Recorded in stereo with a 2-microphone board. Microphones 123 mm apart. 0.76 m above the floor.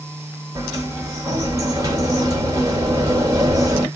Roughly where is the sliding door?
Right.